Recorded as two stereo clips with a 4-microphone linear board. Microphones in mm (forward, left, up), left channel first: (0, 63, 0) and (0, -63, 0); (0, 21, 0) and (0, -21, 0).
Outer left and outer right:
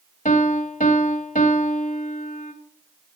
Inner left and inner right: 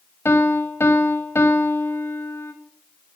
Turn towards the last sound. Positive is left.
turn(degrees=80)